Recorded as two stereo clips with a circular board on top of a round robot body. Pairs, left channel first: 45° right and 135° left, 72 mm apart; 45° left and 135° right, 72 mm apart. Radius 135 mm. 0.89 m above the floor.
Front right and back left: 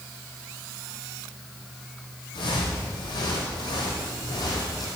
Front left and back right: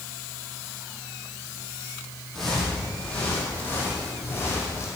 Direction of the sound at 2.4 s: 40° right.